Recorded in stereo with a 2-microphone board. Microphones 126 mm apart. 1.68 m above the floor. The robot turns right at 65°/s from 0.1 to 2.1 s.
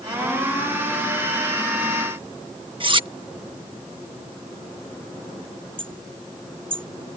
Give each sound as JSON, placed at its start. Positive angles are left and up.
{"t": 2.8, "sound": "cutlery clinking", "side_deg": -40}
{"t": 5.8, "sound": "hammering", "side_deg": -45}